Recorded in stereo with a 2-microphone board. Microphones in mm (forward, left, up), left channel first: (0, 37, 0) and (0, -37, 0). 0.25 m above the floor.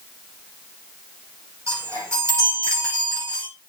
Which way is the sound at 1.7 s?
40° right (ahead or behind).